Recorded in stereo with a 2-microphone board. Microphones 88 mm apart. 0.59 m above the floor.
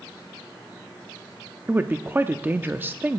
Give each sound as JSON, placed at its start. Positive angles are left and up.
{"t": 1.7, "sound": "a woman speaking", "side_deg": -20, "distance_m": 0.6}